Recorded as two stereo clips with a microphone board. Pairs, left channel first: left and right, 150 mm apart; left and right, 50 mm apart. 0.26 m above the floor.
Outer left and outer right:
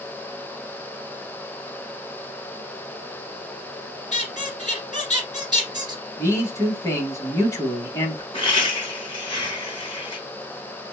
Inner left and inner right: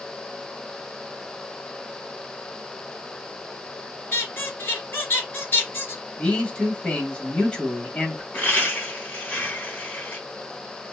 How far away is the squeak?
About 1.5 m.